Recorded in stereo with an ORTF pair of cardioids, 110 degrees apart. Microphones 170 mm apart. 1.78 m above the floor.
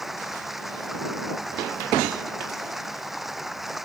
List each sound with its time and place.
0.0 s running water: straight ahead